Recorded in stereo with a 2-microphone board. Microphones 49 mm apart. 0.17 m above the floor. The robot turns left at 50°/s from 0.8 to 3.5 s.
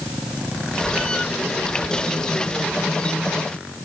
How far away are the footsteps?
I don't hear footsteps.